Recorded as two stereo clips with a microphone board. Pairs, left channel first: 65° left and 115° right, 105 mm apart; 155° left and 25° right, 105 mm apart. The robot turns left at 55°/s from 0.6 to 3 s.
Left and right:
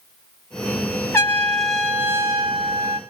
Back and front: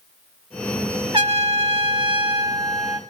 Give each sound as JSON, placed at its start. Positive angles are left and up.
{"t": 1.1, "sound": "a trumpet", "azimuth_deg": 5, "distance_m": 1.2}